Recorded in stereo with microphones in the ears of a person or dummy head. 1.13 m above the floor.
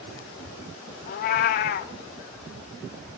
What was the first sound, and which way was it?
A cat meowing, 45° left (ahead or behind).